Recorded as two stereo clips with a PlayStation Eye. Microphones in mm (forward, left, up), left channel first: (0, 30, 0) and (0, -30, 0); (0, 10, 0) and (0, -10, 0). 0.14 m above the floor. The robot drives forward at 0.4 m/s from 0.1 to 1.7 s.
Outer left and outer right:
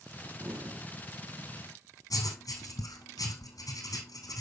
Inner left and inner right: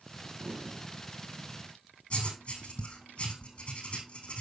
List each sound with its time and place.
0.4 s an explosion: 70° right (ahead or behind), 2.5 m; by 1.5 s 75° right (ahead or behind), 2 m
2.1 s writing: 80° left, 2.5 m